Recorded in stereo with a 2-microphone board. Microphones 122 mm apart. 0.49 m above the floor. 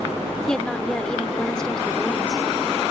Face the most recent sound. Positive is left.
turn(degrees=5)  # may be behind; listen again after turning